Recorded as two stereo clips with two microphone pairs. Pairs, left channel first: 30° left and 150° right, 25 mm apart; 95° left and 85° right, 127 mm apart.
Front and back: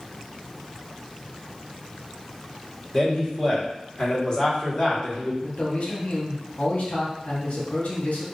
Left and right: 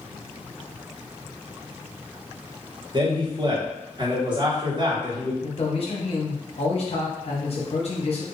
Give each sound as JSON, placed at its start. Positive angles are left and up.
{"t": 2.9, "sound": "a man speaking", "azimuth_deg": -35, "distance_m": 1.3}
{"t": 5.4, "sound": "a man speaking", "azimuth_deg": 55, "distance_m": 1.1}